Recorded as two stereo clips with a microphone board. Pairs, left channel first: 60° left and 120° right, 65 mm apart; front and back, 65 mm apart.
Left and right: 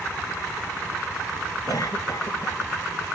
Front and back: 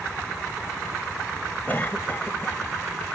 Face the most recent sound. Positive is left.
turn(degrees=60)